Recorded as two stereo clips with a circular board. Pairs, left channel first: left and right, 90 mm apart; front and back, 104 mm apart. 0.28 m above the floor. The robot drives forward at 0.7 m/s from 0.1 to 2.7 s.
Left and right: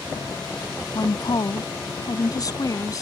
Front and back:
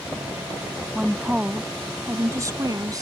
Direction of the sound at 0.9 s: 95° left.